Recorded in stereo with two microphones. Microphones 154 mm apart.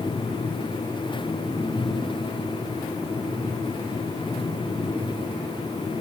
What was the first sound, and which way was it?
Only background noise.